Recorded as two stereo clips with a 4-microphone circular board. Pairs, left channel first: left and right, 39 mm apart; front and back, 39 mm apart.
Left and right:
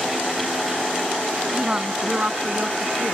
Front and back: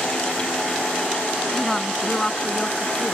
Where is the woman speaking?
75° right; by 3.1 s 70° right.